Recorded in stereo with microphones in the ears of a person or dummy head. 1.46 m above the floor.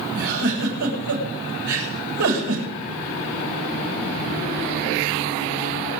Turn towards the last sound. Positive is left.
turn(degrees=-75)  # may be behind; listen again after turning